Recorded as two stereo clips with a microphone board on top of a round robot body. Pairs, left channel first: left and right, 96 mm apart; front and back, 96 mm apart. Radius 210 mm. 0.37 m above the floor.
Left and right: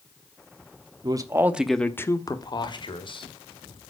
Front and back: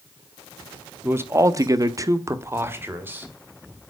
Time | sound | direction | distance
1.0 | a man speaking | 120° right | 1.5 m